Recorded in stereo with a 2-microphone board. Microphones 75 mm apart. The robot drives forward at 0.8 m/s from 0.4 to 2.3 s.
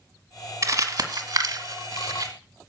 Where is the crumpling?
45° right (ahead or behind), 1.6 m; by 2.3 s 55° right (ahead or behind), 1.5 m.